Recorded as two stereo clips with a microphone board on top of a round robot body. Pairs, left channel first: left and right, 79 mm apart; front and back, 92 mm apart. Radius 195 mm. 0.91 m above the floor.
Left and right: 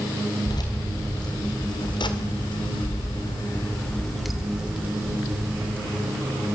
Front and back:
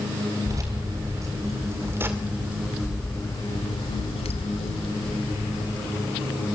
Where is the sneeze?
I don't hear a sneeze.